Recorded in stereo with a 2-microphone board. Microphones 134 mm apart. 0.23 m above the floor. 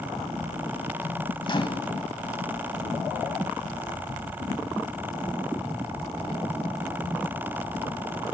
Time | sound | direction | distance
1.4 | a microwave | 35° left (ahead or behind) | 1.3 m